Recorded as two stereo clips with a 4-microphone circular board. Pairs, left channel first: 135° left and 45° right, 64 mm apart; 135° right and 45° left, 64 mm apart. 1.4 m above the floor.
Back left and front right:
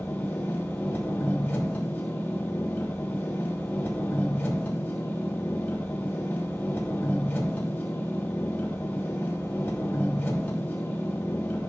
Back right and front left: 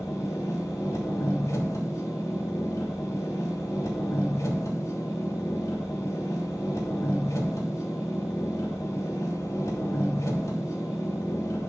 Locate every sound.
0.0 s an engine running: 165° right, 3 m